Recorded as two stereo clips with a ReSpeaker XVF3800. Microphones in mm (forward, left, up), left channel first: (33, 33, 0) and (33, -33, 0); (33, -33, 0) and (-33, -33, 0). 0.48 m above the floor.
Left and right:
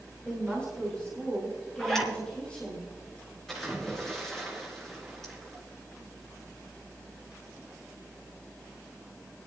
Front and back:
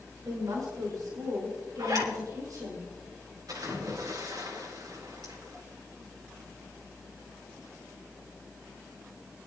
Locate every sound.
0.2 s a woman speaking: 165° left, 5 m
1.8 s a zipper: 175° left, 3.5 m
3.5 s a splash: 175° left, 4.5 m